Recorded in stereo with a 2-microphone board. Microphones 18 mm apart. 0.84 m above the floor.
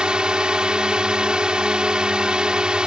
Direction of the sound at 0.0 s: 60° right (ahead or behind).